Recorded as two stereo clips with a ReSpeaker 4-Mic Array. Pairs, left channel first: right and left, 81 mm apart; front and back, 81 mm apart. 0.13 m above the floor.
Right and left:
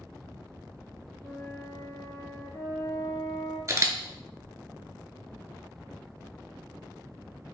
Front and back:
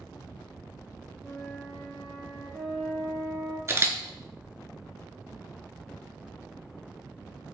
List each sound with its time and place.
1.2 s a flute: 85° right, 1.2 m
3.7 s a camera shutter: 135° left, 0.5 m